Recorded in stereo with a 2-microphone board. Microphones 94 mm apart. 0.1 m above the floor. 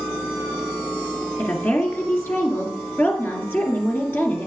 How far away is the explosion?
I don't hear an explosion.